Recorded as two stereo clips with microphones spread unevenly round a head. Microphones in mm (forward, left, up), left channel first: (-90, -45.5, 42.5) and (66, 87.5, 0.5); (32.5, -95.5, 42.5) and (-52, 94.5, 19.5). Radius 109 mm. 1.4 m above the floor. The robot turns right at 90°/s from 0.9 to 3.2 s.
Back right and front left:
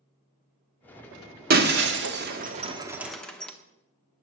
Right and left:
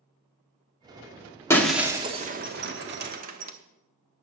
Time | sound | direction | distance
1.5 | breaking glass | straight ahead | 1.1 m